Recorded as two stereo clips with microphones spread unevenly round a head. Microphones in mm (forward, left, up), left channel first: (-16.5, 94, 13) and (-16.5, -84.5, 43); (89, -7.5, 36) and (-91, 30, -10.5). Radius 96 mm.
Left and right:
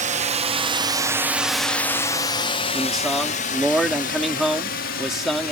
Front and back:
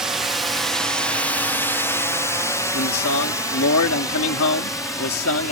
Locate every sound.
0.0 s a drone: 125° right; by 5.5 s 65° left
2.7 s a man speaking: straight ahead